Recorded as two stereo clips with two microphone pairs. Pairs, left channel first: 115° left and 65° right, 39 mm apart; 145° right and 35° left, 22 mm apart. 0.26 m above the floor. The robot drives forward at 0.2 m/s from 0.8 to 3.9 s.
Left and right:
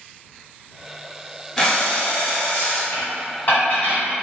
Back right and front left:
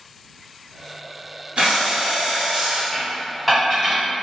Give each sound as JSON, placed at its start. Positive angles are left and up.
{"t": 1.6, "sound": "breathing", "azimuth_deg": 40, "distance_m": 1.0}
{"t": 2.9, "sound": "dishes clattering", "azimuth_deg": 115, "distance_m": 1.2}